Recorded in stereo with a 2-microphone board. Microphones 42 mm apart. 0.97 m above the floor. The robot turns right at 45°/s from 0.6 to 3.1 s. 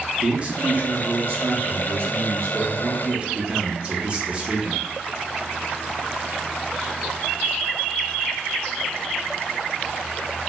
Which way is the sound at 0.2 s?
145° right.